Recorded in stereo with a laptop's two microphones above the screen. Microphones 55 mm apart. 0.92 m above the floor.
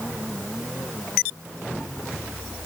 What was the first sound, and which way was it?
Only background noise.